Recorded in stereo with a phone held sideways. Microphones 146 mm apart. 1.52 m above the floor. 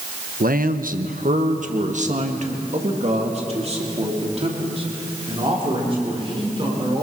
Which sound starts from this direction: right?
A man speaking, at 0.4 s.